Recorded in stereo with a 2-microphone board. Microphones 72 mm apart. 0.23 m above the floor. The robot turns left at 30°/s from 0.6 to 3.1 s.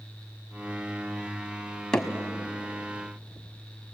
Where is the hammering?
10° left (ahead or behind), 1.5 m.